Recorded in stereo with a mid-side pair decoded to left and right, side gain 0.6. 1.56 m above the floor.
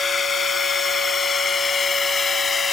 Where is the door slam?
No door slam in this recording.